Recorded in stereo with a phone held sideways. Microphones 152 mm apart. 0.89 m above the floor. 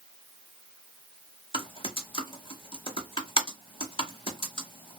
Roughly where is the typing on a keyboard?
Left.